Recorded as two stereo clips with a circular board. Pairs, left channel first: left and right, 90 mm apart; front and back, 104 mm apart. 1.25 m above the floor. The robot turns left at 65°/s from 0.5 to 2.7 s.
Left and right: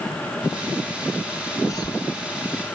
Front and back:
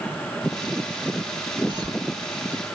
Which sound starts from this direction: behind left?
A cough, at 1.7 s.